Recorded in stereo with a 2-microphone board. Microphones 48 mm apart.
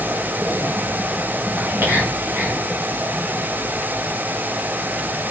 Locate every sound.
1.6 s whispering: 55° right (ahead or behind), 1.7 m